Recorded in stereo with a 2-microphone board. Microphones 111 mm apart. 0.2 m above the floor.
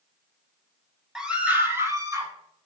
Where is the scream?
5° right (ahead or behind), 1.1 m; by 2.3 s 30° right (ahead or behind), 1.6 m.